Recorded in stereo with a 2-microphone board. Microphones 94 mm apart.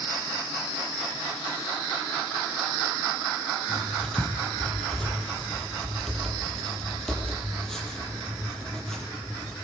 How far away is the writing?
About 7.5 m.